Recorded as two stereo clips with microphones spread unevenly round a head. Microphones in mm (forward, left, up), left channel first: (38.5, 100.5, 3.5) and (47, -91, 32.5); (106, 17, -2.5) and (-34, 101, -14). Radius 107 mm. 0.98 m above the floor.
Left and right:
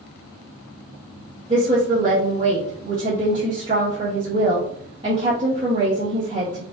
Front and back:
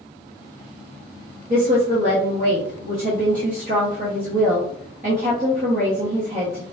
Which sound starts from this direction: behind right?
A woman speaking, at 1.5 s.